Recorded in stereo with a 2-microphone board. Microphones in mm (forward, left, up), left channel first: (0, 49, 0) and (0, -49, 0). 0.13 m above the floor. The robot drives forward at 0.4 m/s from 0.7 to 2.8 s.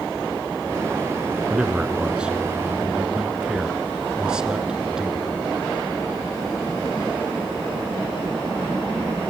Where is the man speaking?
10° right (ahead or behind), 1.4 m.